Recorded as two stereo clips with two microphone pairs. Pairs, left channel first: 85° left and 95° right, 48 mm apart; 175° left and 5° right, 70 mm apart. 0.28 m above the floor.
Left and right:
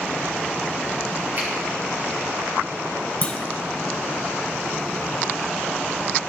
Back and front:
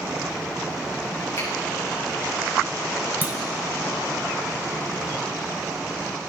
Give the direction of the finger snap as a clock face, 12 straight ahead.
5 o'clock.